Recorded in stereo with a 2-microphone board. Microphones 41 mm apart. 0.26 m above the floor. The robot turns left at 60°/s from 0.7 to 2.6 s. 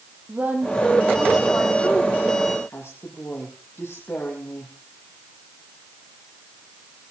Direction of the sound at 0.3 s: 45° right (ahead or behind).